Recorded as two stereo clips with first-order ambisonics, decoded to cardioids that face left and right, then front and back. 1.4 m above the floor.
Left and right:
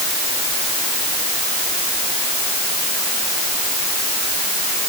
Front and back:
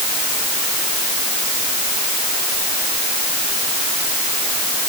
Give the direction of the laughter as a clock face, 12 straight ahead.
I don't hear laughter.